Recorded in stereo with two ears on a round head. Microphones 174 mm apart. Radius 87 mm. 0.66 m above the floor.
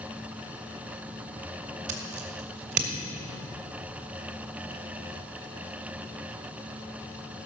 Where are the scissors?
60° right (ahead or behind), 1.9 m.